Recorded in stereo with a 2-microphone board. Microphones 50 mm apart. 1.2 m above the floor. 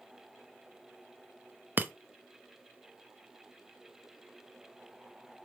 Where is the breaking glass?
40° right (ahead or behind), 0.5 m.